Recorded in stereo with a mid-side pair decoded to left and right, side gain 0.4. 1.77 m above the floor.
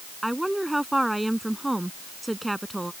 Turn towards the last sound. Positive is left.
turn(degrees=-15)